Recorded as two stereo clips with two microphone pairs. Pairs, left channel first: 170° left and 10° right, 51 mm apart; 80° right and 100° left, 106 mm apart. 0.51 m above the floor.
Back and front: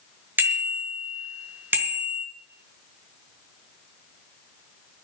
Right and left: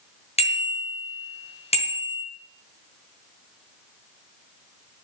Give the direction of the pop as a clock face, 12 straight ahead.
No pop in this recording.